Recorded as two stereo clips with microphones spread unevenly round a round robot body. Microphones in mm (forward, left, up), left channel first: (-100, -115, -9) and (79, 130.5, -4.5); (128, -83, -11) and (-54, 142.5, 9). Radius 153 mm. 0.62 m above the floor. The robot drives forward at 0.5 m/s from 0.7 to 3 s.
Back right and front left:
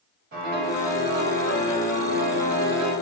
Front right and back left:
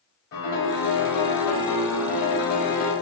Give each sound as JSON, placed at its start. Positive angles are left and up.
{"t": 0.3, "sound": "a piano", "azimuth_deg": -10, "distance_m": 1.8}